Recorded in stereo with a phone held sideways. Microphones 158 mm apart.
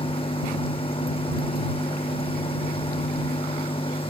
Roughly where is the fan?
Left.